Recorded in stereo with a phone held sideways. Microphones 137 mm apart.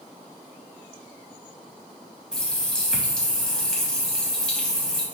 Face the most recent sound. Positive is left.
turn(degrees=5)  # may be behind; listen again after turning